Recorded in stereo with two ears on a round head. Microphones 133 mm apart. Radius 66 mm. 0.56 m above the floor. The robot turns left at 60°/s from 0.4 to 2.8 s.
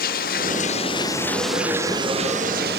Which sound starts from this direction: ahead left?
Running water, at 0.0 s.